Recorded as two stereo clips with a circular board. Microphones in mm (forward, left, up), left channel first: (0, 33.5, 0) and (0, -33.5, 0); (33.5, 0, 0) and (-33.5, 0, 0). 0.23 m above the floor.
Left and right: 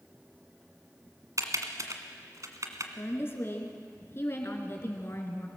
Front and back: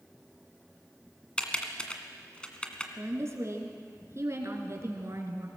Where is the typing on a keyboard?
70° right, 1.8 m.